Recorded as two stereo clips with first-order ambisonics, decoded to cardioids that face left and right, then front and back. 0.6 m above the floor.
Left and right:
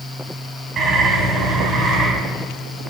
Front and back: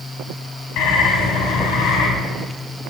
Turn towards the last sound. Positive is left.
turn(degrees=-25)